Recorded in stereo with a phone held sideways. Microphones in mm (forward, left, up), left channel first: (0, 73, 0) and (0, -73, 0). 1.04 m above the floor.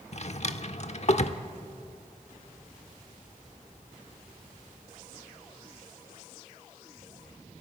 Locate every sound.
0.1 s a drawer: 50° left (ahead or behind), 1.0 m